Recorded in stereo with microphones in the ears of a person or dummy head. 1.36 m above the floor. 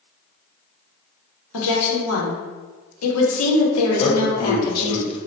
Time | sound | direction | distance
1.5 | a woman speaking | 90° left | 1.2 m
4.0 | a man speaking | 35° left (ahead or behind) | 1.0 m